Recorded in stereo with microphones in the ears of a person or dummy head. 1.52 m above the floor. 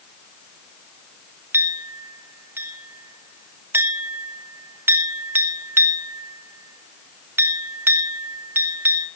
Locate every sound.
1.5 s a clink: 10° right (ahead or behind), 1.3 m